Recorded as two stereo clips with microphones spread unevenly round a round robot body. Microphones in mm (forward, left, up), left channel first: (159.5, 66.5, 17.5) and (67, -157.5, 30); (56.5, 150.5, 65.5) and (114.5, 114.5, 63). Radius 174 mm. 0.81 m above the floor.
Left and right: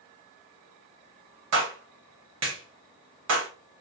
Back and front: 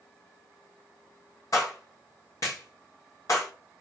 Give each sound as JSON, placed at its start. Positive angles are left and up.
{"t": 1.5, "sound": "a clap", "azimuth_deg": -155, "distance_m": 0.9}